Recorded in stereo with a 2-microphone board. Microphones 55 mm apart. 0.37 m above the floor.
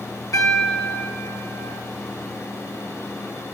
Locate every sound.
0.3 s a piano: 75° left (ahead or behind), 3 m